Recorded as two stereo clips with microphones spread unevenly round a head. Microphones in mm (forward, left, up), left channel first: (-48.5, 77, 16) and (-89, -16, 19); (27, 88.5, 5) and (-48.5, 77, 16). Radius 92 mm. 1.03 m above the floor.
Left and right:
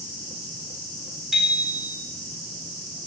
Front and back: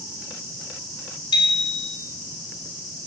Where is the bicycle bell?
25° right, 2 m.